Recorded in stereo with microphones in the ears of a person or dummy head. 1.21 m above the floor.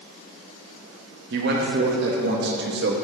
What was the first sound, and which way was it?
A man speaking, 50° right (ahead or behind).